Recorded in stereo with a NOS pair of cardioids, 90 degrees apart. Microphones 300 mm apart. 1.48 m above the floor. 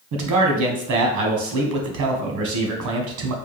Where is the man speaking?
70° right, 1.3 m.